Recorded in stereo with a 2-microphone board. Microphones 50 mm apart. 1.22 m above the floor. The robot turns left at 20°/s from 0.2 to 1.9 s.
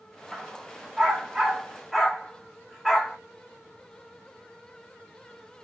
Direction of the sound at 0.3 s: 30° right (ahead or behind).